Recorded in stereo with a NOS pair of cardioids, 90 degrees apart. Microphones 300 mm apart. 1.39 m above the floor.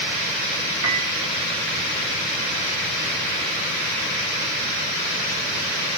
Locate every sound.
0.8 s a piano: 65° right, 3.5 m